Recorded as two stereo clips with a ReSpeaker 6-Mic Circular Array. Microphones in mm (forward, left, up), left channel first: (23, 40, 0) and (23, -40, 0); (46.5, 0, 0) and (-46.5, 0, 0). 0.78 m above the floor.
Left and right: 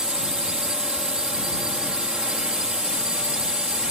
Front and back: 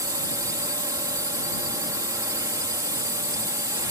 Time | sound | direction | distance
0.0 | a drone | 165° right | ?